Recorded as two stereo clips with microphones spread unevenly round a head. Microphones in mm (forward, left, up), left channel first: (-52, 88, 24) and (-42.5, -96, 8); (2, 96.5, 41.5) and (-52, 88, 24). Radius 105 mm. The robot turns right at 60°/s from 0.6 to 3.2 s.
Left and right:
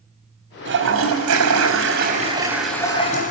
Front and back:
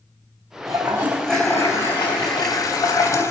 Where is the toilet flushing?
115° right, 4 m; by 3.3 s 35° left, 4 m.